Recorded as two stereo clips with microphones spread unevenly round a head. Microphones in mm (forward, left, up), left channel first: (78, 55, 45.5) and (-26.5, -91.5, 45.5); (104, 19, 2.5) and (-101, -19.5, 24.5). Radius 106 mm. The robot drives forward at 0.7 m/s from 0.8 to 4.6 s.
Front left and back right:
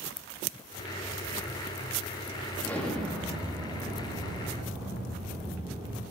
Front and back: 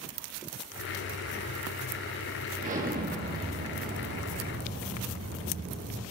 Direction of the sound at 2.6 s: 135° left.